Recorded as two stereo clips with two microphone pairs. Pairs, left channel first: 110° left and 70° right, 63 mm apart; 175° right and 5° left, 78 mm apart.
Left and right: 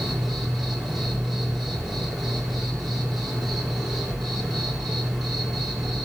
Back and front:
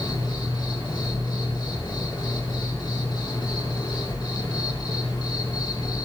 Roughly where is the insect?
Behind.